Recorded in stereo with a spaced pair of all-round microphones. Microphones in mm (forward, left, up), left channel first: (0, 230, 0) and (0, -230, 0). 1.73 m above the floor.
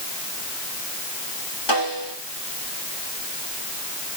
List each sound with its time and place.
1.7 s a snare drum: 60° left (ahead or behind), 5 m